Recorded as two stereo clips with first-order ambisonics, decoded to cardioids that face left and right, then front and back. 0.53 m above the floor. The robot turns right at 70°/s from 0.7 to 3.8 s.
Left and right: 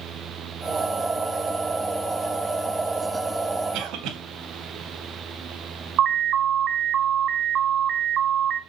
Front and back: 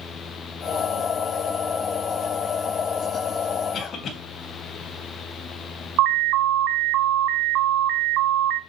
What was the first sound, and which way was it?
A cough, 60° right.